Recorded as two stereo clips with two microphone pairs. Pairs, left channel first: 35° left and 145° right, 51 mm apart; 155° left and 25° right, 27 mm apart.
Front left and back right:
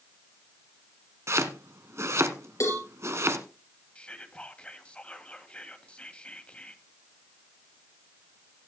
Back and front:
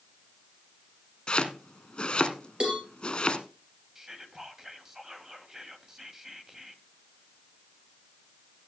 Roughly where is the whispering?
Ahead left.